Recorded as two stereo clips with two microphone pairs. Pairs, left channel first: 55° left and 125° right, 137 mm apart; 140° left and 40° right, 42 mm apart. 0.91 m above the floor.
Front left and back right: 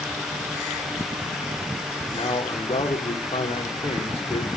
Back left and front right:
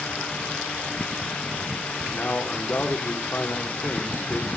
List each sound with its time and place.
2.1 s a man speaking: 100° left, 2.5 m